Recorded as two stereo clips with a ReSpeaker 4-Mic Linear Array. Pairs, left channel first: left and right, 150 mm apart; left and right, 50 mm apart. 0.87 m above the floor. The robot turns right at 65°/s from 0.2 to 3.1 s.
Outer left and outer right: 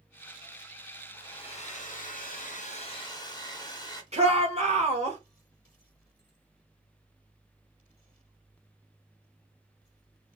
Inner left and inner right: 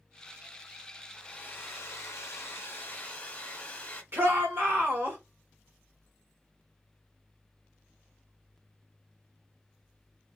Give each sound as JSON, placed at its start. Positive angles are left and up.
{"t": 1.1, "sound": "a hair dryer", "azimuth_deg": 20, "distance_m": 0.9}
{"t": 4.1, "sound": "a shout", "side_deg": -45, "distance_m": 1.5}